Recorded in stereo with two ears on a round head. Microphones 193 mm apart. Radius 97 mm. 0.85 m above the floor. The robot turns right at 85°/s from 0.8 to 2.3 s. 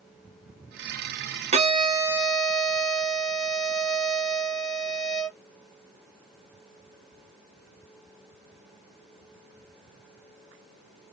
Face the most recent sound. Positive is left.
turn(degrees=5)